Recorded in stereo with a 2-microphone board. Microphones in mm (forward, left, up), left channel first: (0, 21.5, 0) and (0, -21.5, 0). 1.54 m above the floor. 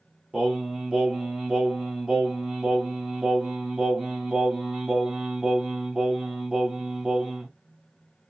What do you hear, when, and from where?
0.3 s singing: 15° right (ahead or behind), 1.3 m